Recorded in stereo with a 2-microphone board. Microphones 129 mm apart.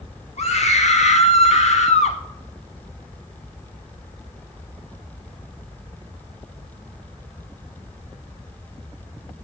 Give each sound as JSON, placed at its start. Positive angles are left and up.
{"t": 0.4, "sound": "a scream", "side_deg": 60, "distance_m": 1.3}